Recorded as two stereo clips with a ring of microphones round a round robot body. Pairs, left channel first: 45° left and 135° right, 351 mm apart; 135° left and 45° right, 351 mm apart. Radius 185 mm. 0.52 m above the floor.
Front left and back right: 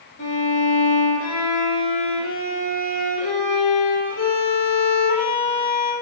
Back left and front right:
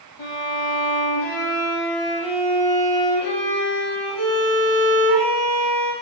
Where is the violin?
100° left, 7 m.